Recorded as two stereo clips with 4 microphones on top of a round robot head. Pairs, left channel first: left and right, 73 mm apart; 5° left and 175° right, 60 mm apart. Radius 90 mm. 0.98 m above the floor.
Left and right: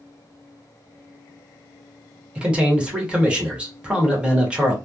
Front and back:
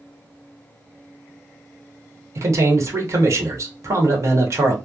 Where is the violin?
No violin in this recording.